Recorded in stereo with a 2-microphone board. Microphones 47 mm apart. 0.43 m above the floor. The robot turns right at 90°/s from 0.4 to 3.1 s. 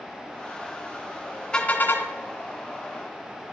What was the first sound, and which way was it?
A car horn, 15° left.